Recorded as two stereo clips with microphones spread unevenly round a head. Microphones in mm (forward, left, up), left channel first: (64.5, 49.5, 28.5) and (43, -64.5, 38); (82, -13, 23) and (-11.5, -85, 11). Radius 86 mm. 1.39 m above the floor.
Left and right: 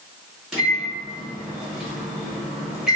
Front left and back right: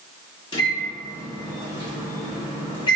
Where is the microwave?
15° right, 1.0 m.